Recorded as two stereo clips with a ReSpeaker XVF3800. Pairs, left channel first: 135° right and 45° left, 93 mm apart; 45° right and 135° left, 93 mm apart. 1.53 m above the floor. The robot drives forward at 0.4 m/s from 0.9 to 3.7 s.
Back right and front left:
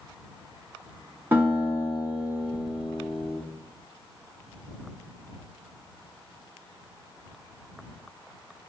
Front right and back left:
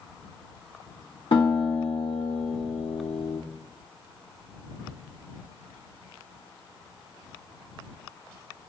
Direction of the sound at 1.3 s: 20° right.